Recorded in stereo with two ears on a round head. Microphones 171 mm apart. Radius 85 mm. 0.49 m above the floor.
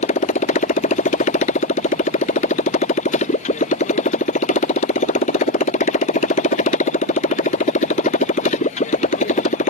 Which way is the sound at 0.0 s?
40° left (ahead or behind).